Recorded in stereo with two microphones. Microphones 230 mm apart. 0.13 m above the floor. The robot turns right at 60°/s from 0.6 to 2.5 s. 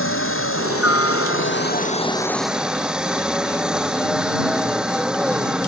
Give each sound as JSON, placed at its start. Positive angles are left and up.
{"t": 0.0, "sound": "a helicopter", "azimuth_deg": 70}